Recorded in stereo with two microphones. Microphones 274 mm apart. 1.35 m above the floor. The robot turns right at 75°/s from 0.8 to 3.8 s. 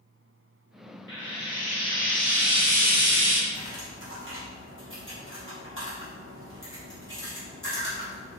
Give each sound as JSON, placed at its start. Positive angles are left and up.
{"t": 1.1, "sound": "frying", "azimuth_deg": 95, "distance_m": 1.0}
{"t": 3.5, "sound": "cutlery clinking", "side_deg": -60, "distance_m": 1.3}